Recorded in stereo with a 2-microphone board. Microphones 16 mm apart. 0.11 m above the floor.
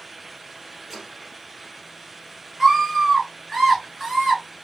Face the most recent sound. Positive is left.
turn(degrees=-5)  # may be behind; listen again after turning